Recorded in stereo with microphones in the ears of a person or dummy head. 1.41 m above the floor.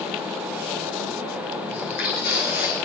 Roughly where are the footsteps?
Left.